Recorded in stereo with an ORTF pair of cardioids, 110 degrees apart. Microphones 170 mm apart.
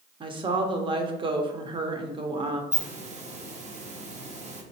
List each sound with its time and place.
0.2 s a woman speaking: 30° right, 0.7 m
2.7 s a hiss: 40° right, 0.6 m